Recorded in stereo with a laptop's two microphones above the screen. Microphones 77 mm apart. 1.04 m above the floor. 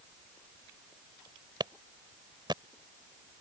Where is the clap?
70° right (ahead or behind).